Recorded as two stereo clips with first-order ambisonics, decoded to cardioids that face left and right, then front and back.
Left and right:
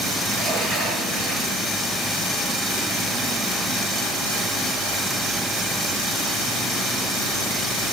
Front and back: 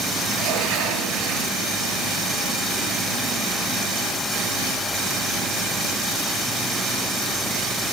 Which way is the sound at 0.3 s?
165° left.